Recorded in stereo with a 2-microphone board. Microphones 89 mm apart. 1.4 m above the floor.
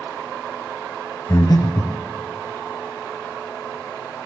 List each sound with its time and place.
1.3 s breathing: 40° left (ahead or behind), 0.7 m